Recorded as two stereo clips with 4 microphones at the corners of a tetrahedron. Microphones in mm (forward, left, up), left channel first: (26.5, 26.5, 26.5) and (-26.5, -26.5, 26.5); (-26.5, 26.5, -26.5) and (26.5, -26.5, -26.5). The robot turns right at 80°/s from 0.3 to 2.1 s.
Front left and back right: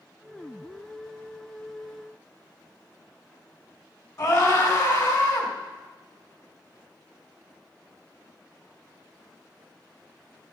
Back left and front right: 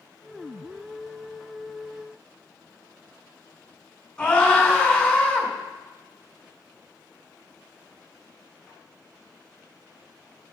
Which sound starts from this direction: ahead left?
A scream, at 4.2 s.